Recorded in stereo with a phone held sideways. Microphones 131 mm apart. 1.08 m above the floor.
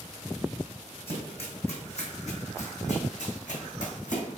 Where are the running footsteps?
45° left (ahead or behind), 3.5 m; by 4.4 s 75° left (ahead or behind), 3.5 m.